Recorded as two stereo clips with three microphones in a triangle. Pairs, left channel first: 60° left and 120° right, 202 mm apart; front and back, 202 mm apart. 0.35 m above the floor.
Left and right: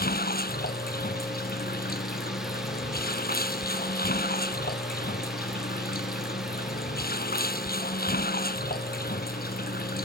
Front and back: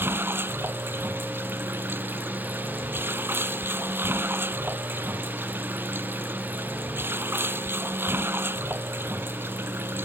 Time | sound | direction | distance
0.0 | running water | 100° left | ?